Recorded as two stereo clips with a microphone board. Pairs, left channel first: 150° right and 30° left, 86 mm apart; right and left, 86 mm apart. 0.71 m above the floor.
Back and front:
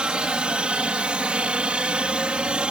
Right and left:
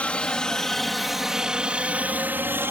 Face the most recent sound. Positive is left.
turn(degrees=95)